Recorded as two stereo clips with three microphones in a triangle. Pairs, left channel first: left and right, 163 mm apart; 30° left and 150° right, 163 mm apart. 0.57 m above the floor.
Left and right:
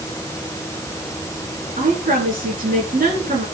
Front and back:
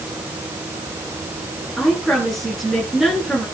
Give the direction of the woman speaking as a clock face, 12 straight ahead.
2 o'clock.